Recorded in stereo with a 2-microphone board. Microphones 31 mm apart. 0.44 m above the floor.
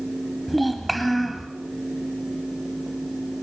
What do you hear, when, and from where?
0.5 s a child speaking: 5° left (ahead or behind), 1.6 m